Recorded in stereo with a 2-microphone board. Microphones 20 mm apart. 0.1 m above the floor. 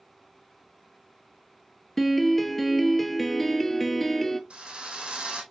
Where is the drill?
65° right (ahead or behind), 2.5 m.